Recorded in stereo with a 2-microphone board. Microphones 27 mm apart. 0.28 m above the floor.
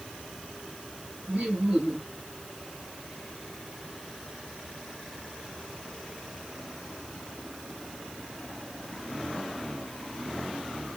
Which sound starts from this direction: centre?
Laughter, at 1.3 s.